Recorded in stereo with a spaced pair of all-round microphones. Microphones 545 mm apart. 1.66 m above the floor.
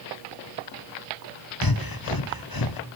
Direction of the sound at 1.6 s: 40° left (ahead or behind).